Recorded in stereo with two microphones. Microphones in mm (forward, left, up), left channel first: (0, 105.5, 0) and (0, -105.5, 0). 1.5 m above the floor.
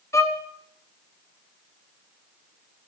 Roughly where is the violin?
Centre.